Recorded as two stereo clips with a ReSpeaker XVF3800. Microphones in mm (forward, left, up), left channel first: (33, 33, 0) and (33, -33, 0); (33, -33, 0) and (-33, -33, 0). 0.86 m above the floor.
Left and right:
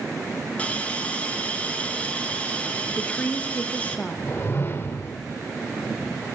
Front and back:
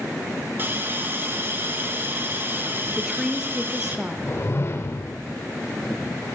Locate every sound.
0.6 s a hiss: 145° left, 1.2 m
3.0 s a woman speaking: 110° left, 0.7 m
4.3 s a whoosh: 40° left, 0.8 m